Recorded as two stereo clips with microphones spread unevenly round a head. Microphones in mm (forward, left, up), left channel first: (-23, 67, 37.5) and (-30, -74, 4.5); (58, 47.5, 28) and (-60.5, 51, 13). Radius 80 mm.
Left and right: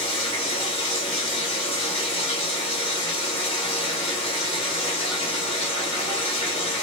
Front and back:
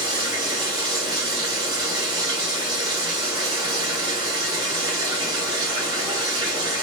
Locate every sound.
0.0 s running water: 120° left, 1.5 m